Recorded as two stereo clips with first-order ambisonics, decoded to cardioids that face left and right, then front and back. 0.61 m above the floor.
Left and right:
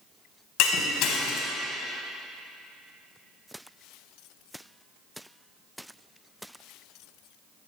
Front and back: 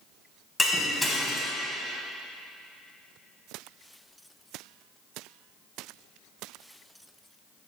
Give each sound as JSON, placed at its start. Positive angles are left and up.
{"t": 0.6, "sound": "breaking glass", "azimuth_deg": 90, "distance_m": 1.0}